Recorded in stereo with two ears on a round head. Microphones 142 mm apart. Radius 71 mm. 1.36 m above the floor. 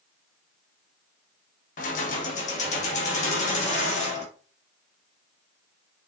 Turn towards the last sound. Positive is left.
turn(degrees=45)  # may be behind; listen again after turning